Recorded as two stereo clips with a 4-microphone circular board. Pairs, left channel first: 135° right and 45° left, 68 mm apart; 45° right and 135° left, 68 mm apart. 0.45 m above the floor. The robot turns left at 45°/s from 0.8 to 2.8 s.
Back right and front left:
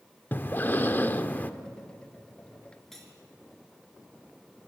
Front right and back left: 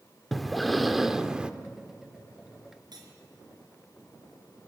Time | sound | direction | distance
0.3 | breathing | 135° right | 0.9 m
2.9 | cutlery clinking | 140° left | 4 m